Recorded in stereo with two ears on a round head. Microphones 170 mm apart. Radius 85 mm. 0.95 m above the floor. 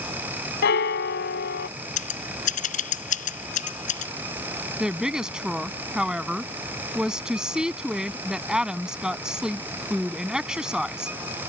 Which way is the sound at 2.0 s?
40° left (ahead or behind).